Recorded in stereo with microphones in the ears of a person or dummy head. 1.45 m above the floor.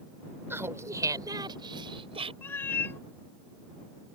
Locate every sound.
0.5 s laughter: 10° right (ahead or behind); by 2.3 s 30° right (ahead or behind)
2.4 s a cat meowing: 15° left (ahead or behind)